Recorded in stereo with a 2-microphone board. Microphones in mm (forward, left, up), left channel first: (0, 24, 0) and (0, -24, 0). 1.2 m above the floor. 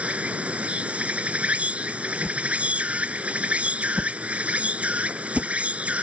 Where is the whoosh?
Centre (ahead or behind).